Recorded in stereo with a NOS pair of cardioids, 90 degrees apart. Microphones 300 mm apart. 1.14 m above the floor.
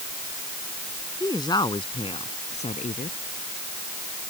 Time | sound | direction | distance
1.2 | a woman speaking | 10° left | ?